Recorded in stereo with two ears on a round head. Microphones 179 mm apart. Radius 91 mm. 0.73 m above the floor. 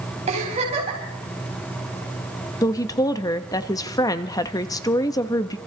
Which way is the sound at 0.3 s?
30° right (ahead or behind).